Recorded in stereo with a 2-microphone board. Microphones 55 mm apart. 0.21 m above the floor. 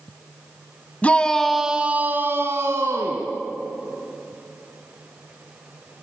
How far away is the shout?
About 1.5 m.